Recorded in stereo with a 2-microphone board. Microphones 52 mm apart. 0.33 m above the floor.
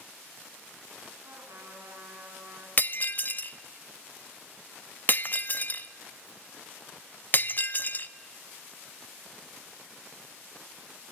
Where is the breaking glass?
35° left (ahead or behind), 0.5 m.